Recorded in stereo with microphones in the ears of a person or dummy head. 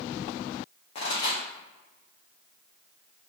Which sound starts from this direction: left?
A pop, at 0.9 s.